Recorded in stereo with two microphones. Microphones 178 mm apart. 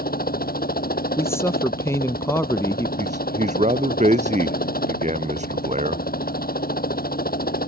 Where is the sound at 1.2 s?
15° left (ahead or behind).